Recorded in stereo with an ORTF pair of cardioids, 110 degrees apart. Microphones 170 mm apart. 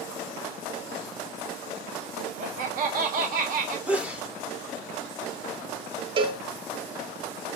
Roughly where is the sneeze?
Ahead.